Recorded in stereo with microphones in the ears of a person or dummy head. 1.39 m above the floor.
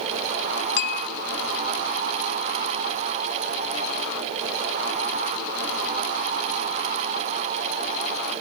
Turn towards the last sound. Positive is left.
turn(degrees=60)  # may be behind; listen again after turning